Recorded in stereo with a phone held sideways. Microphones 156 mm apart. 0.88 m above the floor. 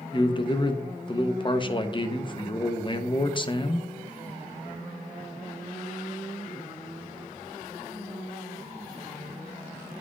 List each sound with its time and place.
0.1 s a man speaking: 30° left (ahead or behind), 0.7 m